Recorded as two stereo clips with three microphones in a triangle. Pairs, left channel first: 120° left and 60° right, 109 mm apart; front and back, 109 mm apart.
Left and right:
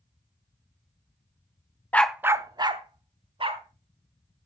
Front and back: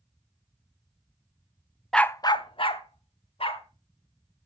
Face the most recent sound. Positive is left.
turn(degrees=-30)